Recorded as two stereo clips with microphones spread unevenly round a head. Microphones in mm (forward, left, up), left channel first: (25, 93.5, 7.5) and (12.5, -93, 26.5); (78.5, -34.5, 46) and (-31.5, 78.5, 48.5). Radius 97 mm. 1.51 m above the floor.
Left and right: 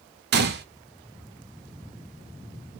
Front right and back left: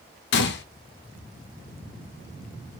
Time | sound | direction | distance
0.3 | a gunshot | 55° right | 0.6 m